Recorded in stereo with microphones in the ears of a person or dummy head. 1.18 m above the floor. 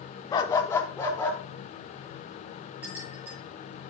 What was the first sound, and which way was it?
A dog barking, 25° left (ahead or behind).